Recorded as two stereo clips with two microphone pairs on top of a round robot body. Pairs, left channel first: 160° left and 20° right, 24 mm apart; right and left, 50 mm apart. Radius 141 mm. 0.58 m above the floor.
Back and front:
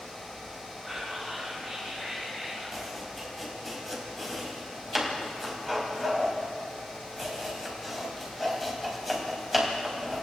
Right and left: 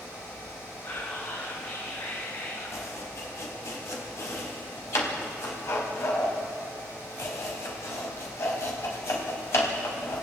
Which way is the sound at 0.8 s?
110° right.